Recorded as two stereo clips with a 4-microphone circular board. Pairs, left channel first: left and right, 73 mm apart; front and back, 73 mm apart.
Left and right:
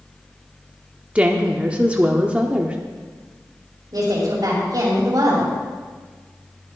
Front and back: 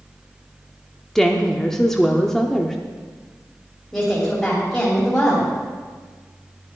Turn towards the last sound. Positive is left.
turn(degrees=-80)